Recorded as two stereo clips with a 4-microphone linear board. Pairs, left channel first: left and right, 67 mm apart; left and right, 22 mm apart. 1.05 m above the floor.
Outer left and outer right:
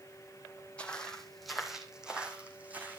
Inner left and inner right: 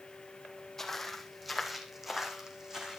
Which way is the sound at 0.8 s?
15° left (ahead or behind).